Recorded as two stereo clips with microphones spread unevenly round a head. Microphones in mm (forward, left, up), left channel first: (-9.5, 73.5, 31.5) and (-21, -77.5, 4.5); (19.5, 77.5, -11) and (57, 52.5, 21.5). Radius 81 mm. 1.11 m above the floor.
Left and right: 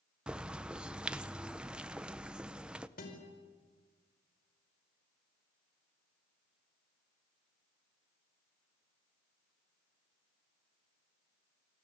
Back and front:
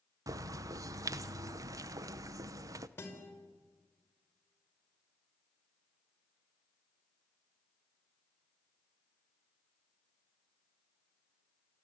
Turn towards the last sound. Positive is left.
turn(degrees=120)